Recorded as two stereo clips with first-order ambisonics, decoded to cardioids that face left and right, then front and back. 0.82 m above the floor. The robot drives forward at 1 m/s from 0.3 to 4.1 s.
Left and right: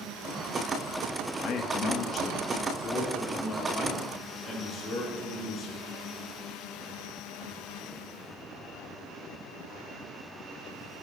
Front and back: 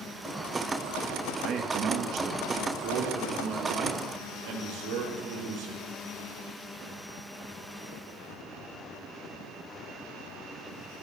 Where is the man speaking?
130° left, 1.6 m; by 5.8 s 165° left, 4 m.